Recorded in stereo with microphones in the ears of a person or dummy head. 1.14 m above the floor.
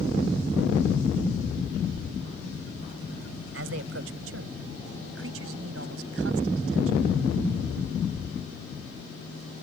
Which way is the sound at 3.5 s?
80° right.